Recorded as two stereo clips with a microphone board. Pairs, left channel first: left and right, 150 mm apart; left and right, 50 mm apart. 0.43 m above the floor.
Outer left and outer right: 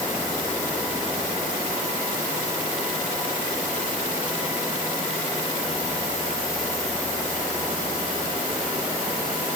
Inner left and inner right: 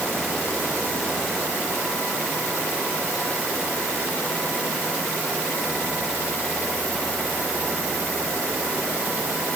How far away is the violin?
I don't hear a violin.